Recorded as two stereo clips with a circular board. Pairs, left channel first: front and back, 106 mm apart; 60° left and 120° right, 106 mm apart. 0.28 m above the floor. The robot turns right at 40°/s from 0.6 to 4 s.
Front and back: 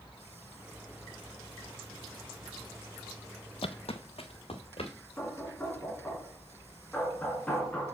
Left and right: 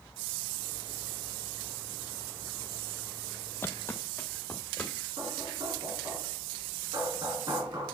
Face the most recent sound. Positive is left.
turn(degrees=-75)